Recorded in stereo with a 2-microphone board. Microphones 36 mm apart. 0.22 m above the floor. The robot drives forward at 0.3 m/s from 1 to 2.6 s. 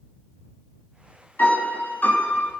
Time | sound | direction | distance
1.4 | a piano | 60° left (ahead or behind) | 1.1 m